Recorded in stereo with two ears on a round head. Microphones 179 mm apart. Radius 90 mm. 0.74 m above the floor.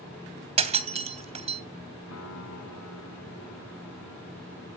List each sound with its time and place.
0.6 s breaking glass: 35° right (ahead or behind), 3 m
2.1 s a piano: 85° left, 8.5 m